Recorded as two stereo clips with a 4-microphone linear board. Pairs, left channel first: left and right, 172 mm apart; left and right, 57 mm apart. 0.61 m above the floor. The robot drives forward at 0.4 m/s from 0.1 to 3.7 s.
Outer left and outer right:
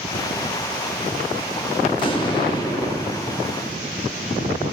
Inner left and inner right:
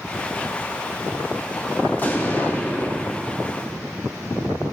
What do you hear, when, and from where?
1.9 s an explosion: 30° left (ahead or behind), 0.8 m; by 3.2 s 25° left (ahead or behind), 1.0 m